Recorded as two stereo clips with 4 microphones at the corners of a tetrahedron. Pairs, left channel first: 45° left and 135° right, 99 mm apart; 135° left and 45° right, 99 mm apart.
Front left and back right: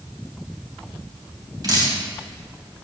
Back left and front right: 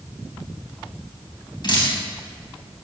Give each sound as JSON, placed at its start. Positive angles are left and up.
{"t": 1.6, "sound": "dripping", "azimuth_deg": 175, "distance_m": 3.5}